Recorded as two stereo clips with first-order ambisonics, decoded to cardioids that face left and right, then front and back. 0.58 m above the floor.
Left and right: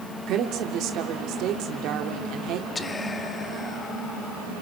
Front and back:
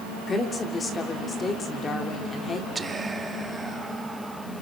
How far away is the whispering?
About 0.9 m.